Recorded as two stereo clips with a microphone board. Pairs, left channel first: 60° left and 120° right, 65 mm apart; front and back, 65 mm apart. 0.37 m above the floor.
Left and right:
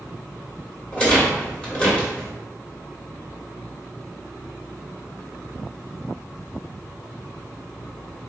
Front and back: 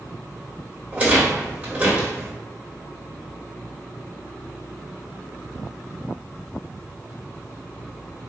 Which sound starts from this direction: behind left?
A rattle, at 0.9 s.